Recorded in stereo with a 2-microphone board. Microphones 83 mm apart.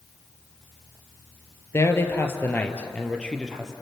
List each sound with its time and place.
1.7 s a man speaking: 35° left (ahead or behind), 3 m; by 3.7 s 5° left (ahead or behind), 3 m